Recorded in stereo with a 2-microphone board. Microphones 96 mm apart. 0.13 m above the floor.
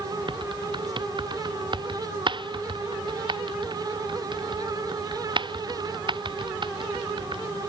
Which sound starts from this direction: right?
Typing on a keyboard, at 0.3 s.